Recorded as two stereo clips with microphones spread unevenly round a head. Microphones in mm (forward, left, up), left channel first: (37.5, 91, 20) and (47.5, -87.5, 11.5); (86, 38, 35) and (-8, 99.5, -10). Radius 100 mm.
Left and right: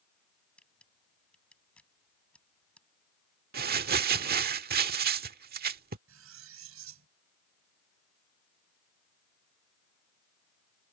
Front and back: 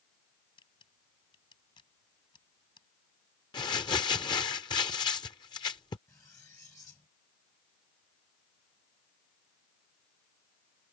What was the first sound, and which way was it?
A camera shutter, 10° left.